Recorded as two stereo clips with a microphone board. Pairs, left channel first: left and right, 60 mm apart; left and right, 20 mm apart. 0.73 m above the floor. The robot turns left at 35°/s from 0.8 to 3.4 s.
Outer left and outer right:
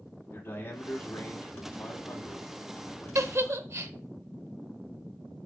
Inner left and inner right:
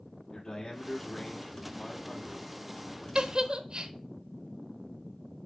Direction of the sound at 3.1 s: 55° right (ahead or behind).